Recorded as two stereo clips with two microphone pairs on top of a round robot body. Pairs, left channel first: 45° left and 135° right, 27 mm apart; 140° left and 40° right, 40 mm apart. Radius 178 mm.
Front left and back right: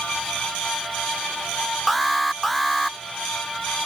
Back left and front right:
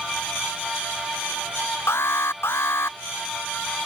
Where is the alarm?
130° left.